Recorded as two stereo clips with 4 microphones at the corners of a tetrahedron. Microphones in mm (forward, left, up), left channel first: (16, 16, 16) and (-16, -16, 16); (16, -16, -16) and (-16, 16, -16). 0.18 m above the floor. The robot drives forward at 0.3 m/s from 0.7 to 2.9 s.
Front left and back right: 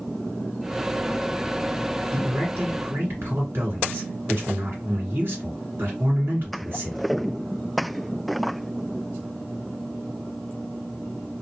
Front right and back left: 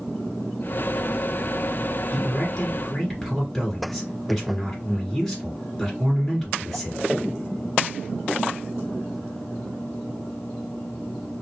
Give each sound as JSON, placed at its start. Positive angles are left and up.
{"t": 2.1, "sound": "a man speaking", "azimuth_deg": -120, "distance_m": 2.0}